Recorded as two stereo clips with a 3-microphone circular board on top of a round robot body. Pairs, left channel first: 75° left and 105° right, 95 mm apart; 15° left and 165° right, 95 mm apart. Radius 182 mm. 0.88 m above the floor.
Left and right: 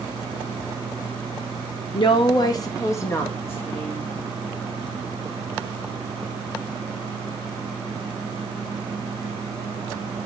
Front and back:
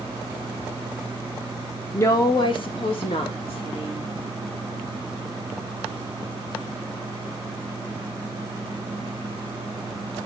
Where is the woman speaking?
75° left, 1.0 m; by 4.0 s 5° left, 3 m.